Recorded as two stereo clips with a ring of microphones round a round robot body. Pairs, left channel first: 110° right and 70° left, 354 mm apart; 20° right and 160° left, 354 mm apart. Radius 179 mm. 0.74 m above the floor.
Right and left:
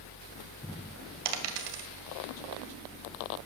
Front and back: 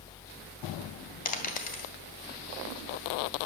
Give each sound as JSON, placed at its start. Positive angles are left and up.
{"t": 1.2, "sound": "a dropped coin", "azimuth_deg": 45, "distance_m": 1.9}